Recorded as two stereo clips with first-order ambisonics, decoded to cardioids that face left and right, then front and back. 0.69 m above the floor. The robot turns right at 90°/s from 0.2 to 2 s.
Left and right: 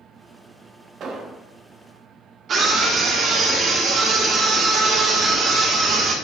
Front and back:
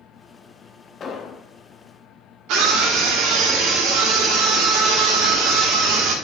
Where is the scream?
150° right, 2.5 m.